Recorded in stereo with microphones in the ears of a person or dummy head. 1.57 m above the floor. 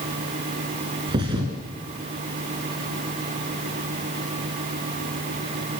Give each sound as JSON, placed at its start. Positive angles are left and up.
{"t": 1.1, "sound": "a thud", "side_deg": -25, "distance_m": 2.5}